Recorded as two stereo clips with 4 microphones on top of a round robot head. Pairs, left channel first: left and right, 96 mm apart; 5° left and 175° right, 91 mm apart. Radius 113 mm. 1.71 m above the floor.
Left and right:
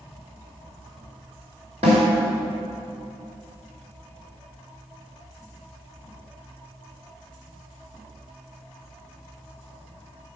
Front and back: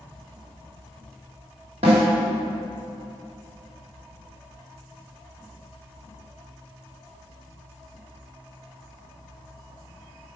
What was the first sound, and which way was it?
A snare drum, 135° right.